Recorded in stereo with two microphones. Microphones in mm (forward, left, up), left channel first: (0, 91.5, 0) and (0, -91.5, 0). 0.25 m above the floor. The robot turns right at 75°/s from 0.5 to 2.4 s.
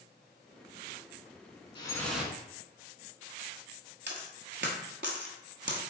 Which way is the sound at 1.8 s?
150° left.